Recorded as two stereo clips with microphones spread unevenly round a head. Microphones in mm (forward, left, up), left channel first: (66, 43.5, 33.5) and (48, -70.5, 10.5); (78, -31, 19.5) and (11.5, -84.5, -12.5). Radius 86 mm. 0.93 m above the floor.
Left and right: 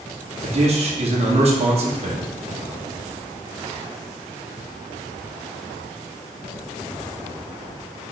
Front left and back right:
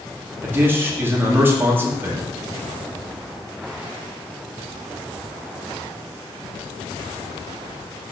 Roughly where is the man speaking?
Right.